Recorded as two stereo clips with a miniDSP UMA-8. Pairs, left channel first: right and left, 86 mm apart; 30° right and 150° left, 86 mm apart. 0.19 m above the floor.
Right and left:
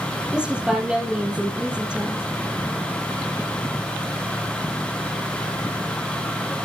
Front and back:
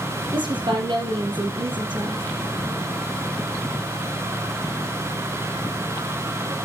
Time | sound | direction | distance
0.3 | a woman speaking | 165° left | 4.5 m